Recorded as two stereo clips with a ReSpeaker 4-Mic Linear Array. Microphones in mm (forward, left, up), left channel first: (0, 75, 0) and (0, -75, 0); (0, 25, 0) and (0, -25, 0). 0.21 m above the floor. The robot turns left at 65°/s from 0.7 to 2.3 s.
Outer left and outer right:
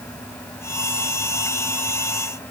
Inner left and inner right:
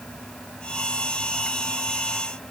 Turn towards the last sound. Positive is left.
No sound to turn to.